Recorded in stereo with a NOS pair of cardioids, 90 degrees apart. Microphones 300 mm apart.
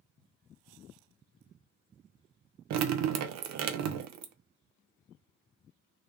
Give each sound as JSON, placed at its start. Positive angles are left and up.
{"t": 2.7, "sound": "dripping", "azimuth_deg": -70, "distance_m": 0.5}